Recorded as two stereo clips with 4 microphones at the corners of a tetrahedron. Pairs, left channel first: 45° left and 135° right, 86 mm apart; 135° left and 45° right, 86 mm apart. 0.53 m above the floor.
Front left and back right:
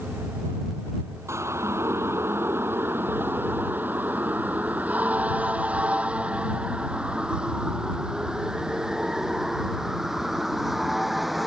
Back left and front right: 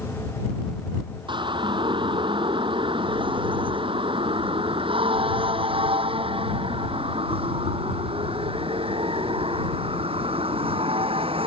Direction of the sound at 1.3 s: 75° right.